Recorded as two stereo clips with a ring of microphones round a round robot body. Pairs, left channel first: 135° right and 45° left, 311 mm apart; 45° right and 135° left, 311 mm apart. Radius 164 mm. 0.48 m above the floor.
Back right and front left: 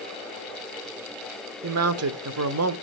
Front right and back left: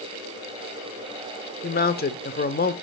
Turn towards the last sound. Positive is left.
turn(degrees=10)